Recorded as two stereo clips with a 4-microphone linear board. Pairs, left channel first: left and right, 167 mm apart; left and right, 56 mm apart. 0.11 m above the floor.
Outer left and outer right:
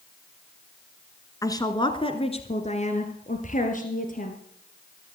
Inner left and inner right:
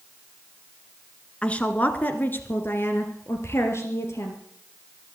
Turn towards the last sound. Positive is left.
turn(degrees=55)  # may be behind; listen again after turning